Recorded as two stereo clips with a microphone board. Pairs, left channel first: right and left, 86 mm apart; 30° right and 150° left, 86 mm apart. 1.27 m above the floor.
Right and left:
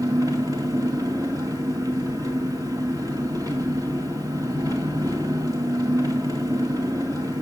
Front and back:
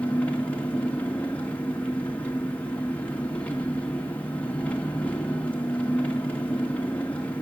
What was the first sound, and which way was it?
An engine running, 45° left.